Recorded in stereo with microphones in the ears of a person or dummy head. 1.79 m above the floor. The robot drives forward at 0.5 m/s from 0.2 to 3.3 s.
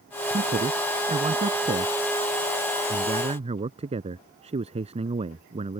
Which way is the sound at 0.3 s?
30° right (ahead or behind).